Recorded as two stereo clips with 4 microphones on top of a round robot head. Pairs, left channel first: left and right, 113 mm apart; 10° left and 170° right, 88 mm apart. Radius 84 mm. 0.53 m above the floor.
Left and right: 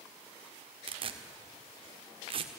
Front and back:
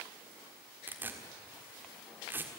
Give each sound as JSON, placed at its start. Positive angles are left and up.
{"t": 0.9, "sound": "tearing paper", "azimuth_deg": -105, "distance_m": 1.6}